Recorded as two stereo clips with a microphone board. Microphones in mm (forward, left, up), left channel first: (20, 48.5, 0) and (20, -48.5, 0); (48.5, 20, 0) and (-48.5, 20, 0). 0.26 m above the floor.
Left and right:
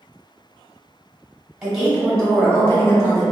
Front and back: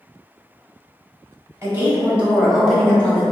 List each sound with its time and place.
1.6 s a woman speaking: 160° right, 1.0 m; by 3.2 s 65° left, 1.2 m